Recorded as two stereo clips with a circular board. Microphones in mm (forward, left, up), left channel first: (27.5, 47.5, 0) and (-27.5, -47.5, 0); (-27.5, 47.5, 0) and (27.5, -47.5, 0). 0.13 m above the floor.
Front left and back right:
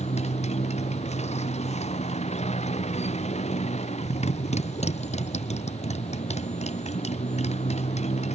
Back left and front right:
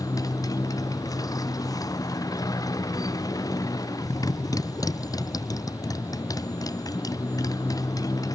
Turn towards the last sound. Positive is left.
turn(degrees=60)